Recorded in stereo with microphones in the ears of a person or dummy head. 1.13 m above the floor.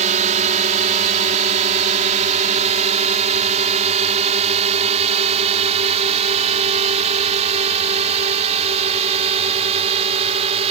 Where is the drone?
40° right (ahead or behind); by 10.7 s 35° right (ahead or behind).